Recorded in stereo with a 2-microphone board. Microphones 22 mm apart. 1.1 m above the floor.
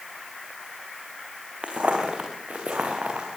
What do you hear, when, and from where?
1.6 s footsteps: 55° right (ahead or behind), 4 m; by 3.3 s 70° right (ahead or behind), 6 m